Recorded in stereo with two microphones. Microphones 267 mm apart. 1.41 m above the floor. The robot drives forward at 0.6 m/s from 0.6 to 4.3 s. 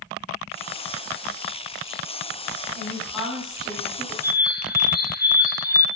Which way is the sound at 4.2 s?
35° left (ahead or behind).